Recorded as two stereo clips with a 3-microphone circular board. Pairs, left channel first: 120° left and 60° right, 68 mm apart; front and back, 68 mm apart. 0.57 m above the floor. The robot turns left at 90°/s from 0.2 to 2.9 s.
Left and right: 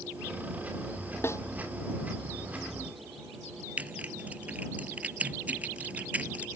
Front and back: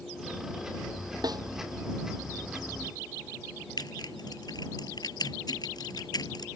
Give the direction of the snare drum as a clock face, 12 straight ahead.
6 o'clock.